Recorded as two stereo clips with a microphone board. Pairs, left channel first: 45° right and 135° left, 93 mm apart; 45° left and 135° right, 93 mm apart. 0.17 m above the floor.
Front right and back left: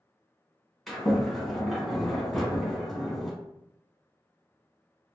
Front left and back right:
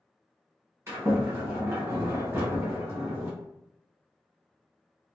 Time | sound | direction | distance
0.9 | a sliding door | 130° right | 1.2 m